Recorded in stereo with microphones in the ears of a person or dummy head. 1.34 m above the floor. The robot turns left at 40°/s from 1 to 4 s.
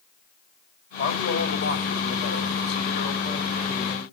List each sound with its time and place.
1.0 s a man speaking: 125° left, 3 m; by 4.0 s 5° left, 3 m